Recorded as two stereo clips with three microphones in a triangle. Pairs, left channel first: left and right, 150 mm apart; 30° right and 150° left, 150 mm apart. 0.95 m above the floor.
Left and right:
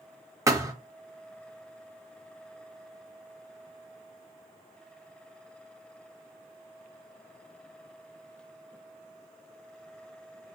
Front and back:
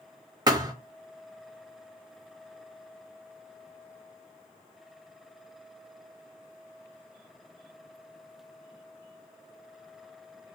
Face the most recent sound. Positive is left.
turn(degrees=-155)